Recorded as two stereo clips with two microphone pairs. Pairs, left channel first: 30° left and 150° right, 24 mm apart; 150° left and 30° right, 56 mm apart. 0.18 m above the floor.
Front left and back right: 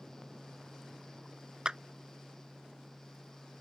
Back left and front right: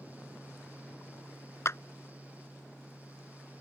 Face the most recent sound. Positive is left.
turn(degrees=165)